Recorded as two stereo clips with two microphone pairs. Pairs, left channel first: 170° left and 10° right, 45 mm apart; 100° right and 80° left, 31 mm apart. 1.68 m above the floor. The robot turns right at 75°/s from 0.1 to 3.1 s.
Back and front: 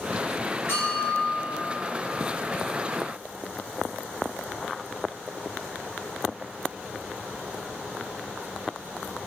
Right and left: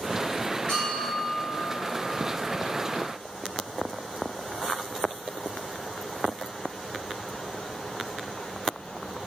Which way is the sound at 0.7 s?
155° right.